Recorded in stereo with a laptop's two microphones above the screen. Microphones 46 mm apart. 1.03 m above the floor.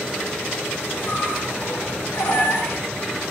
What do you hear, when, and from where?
1.0 s a squeak: 65° left (ahead or behind), 6.5 m